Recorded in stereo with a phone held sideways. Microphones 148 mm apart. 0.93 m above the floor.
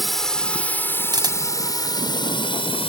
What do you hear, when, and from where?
0.0 s a drone: centre (ahead or behind); by 2.9 s 35° left (ahead or behind)
1.1 s a camera shutter: 25° right (ahead or behind)